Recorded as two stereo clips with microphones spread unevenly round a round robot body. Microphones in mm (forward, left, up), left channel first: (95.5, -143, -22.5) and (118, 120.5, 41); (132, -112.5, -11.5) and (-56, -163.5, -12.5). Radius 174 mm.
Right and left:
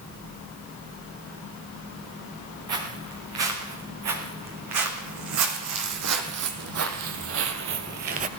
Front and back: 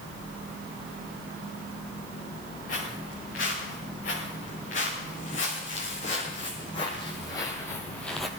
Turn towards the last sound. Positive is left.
turn(degrees=105)